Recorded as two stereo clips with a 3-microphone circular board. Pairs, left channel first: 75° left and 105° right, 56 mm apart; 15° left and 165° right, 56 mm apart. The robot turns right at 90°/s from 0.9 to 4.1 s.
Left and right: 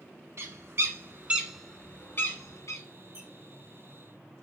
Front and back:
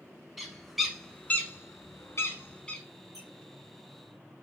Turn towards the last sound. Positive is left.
turn(degrees=-45)